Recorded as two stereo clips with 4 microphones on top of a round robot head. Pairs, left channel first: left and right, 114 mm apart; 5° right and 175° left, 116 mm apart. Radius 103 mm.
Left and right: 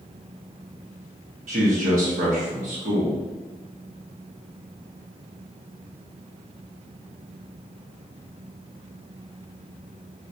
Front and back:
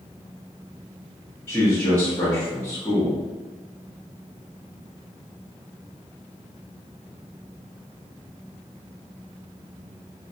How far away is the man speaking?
About 1.2 m.